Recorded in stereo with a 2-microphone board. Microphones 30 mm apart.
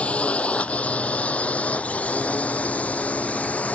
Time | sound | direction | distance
0.0 | a drone | 45° left (ahead or behind) | ?